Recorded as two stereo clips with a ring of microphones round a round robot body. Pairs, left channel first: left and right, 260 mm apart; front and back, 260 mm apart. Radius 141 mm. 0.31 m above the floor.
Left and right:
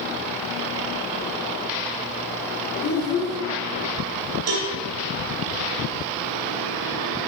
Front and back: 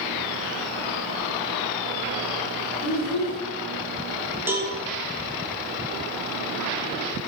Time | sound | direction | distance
2.8 | a child speaking | 40° left | 2 m
4.5 | a cowbell | 100° right | 1.4 m